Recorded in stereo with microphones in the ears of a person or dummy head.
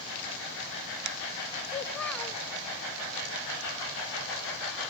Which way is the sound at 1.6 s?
10° left (ahead or behind).